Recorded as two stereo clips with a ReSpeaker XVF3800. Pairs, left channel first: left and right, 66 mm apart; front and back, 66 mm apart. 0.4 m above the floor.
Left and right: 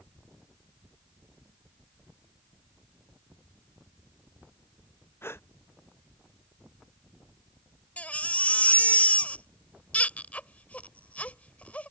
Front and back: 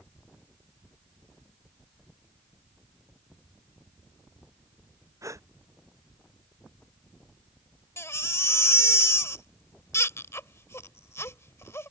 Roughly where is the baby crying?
Ahead left.